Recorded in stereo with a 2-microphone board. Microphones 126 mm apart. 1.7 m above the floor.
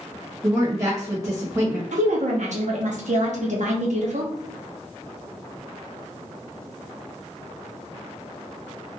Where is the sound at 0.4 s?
30° right (ahead or behind), 1.0 m.